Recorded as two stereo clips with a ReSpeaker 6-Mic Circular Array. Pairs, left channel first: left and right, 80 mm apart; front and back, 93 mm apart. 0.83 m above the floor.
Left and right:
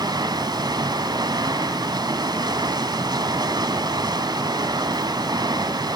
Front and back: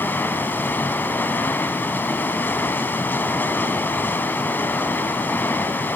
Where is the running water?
65° right, 1.5 m.